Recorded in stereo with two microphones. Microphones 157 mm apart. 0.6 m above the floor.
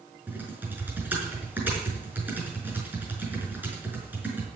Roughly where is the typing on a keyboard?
Centre.